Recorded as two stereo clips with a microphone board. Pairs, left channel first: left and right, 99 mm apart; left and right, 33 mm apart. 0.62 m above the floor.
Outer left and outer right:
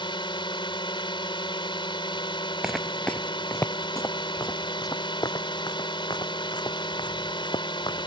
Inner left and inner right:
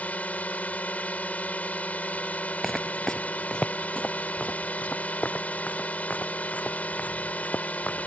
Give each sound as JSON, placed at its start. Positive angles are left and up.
{"t": 0.0, "sound": "a drone", "side_deg": 55}
{"t": 2.6, "sound": "footsteps", "side_deg": -5}